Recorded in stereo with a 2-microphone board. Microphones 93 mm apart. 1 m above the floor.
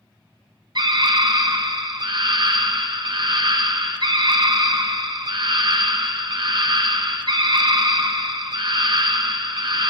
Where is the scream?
55° right (ahead or behind), 0.8 m.